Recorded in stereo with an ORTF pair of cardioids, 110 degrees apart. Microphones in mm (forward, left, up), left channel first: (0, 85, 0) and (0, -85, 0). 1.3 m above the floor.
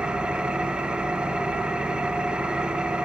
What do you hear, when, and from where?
0.0 s an engine running: 5° right, 1.0 m